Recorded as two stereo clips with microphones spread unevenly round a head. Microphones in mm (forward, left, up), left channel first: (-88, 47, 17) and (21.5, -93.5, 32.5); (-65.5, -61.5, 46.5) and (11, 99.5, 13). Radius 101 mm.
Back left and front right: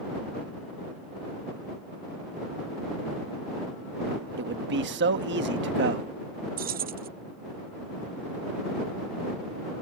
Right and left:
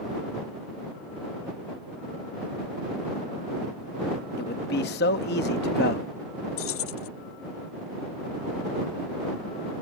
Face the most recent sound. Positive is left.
turn(degrees=-90)